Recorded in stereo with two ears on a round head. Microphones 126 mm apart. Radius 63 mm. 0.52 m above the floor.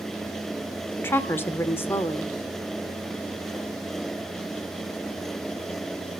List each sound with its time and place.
1.0 s a woman speaking: 15° left (ahead or behind), 1.3 m